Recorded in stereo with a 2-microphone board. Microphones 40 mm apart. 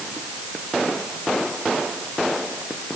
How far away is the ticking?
I don't hear ticking.